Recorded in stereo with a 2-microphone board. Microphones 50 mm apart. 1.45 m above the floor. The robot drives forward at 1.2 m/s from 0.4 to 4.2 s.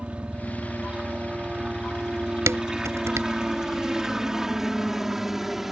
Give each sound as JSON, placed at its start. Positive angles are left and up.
{"t": 0.0, "sound": "a helicopter", "side_deg": -25}
{"t": 2.5, "sound": "dishes clattering", "side_deg": -75}